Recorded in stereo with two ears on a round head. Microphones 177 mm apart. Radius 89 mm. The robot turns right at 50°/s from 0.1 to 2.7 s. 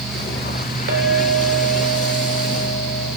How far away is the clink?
About 2.5 m.